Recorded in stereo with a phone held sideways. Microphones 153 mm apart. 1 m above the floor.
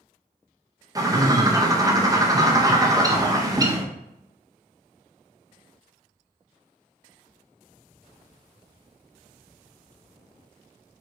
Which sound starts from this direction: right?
A bird, at 0.9 s.